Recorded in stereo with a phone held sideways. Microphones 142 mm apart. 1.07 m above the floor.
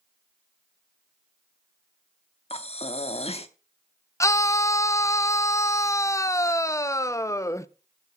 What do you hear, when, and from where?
2.5 s breathing: 45° left (ahead or behind), 0.8 m
4.2 s a scream: 20° left (ahead or behind), 0.5 m